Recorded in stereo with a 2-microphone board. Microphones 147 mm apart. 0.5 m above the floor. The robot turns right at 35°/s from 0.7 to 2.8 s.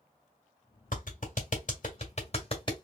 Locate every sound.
0.9 s a clap: 65° left (ahead or behind), 1.5 m; by 2.8 s 30° left (ahead or behind), 1.5 m